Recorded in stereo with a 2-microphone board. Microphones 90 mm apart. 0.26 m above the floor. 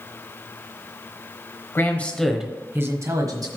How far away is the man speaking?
About 1.1 m.